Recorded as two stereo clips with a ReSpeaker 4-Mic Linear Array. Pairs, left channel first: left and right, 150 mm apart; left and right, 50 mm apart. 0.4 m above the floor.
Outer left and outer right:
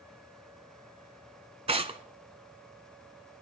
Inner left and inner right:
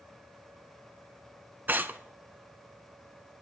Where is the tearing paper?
40° right (ahead or behind), 0.9 m.